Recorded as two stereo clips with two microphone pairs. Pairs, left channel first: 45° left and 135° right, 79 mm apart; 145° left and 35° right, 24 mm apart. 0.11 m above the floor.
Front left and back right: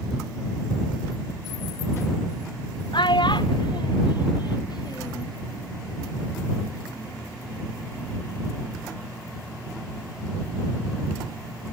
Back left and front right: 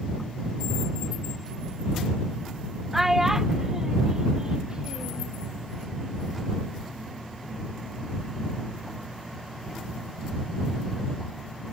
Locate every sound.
2.9 s a child speaking: 40° left; by 5.3 s 15° left